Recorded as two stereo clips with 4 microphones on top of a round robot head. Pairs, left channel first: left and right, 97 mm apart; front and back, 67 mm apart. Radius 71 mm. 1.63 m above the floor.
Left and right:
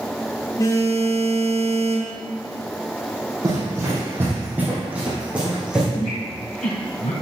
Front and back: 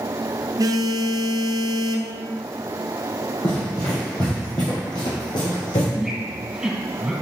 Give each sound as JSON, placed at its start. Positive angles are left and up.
{"t": 0.6, "sound": "a phone buzzing", "azimuth_deg": 150, "distance_m": 0.8}
{"t": 3.4, "sound": "running footsteps", "azimuth_deg": -45, "distance_m": 2.5}
{"t": 5.9, "sound": "a squeak", "azimuth_deg": 100, "distance_m": 3.0}